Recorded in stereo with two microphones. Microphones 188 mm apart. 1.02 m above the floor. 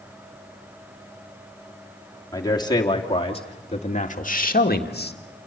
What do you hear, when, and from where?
2.3 s a man speaking: 20° left (ahead or behind), 3 m; by 5.2 s 60° left (ahead or behind), 1.8 m